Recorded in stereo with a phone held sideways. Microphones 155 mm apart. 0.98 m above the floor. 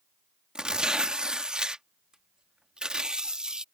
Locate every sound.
0.6 s tearing paper: 5° right (ahead or behind)